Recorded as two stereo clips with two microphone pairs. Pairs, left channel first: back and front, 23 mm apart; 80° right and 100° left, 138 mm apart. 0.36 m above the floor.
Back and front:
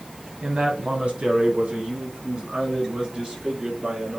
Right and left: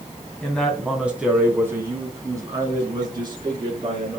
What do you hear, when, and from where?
0.4 s a man speaking: straight ahead, 2.5 m; by 4.2 s 45° left, 5 m